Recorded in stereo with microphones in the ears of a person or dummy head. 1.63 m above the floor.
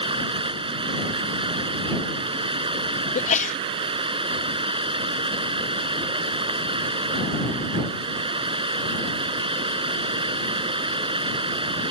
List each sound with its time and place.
0.0 s running water: 25° right (ahead or behind)
3.1 s a sneeze: 35° left (ahead or behind)